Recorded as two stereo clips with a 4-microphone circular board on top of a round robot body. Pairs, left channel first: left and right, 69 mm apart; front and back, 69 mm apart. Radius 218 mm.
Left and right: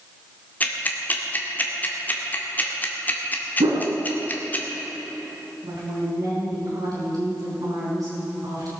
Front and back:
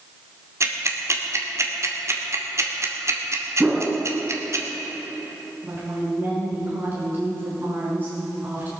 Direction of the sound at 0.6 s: 150° left.